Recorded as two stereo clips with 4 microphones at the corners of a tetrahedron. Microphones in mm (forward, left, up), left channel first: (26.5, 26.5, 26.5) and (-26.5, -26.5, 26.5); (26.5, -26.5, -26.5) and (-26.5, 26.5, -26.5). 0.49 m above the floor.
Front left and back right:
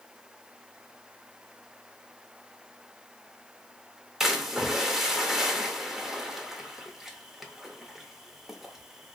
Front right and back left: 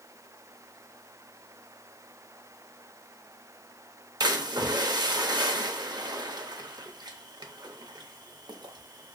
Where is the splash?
140° left, 0.6 m.